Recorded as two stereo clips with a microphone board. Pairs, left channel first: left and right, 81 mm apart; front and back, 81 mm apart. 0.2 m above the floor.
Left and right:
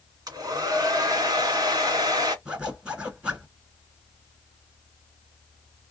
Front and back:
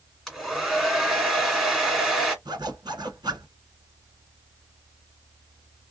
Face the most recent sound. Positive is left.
turn(degrees=-165)